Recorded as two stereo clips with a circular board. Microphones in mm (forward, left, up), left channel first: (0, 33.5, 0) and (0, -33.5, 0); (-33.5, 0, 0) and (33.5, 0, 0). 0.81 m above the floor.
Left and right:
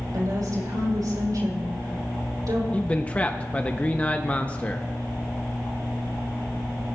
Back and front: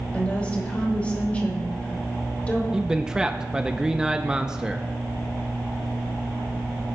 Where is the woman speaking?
110° right, 4 m.